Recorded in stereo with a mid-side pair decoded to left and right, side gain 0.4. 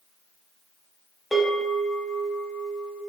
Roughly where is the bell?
Ahead left.